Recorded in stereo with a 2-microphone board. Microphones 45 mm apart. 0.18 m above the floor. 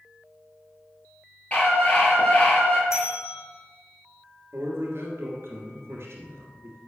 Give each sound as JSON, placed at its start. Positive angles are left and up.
{"t": 1.5, "sound": "a scream", "side_deg": 30, "distance_m": 3.5}
{"t": 2.9, "sound": "a bell", "side_deg": 85, "distance_m": 2.5}
{"t": 4.5, "sound": "a man speaking", "side_deg": -65, "distance_m": 2.5}